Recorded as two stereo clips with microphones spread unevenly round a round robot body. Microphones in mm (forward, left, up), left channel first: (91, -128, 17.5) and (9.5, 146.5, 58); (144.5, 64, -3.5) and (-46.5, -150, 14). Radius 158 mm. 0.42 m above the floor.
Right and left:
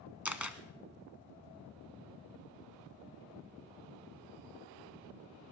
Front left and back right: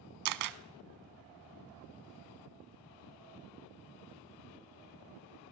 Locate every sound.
0.2 s a camera shutter: 170° right, 0.7 m